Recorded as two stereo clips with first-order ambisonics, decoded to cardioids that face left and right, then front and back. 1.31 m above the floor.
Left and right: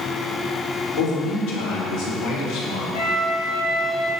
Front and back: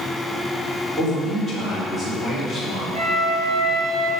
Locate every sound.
1.0 s a man speaking: 100° left, 4 m
2.9 s a flute: 105° left, 3 m